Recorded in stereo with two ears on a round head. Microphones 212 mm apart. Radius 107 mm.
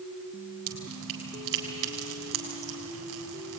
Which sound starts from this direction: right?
Dripping, at 0.7 s.